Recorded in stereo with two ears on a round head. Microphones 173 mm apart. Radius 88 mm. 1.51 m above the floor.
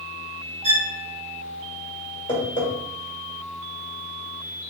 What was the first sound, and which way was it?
A violin, 35° right (ahead or behind).